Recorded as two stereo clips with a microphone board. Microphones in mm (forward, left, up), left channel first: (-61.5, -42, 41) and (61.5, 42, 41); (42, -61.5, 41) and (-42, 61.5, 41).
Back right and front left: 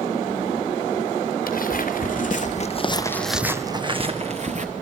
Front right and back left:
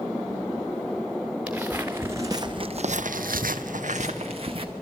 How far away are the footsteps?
About 2 m.